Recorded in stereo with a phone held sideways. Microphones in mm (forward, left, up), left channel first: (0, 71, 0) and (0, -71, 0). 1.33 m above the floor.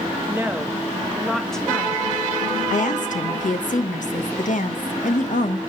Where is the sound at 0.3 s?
15° right (ahead or behind), 1.9 m; by 2.0 s 10° left (ahead or behind), 2.5 m.